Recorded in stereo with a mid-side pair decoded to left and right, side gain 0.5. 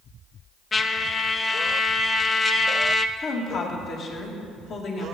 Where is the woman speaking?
60° left, 2.5 m.